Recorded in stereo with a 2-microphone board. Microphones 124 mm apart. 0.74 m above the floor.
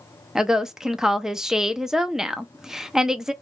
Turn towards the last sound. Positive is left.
turn(degrees=-5)  # may be behind; listen again after turning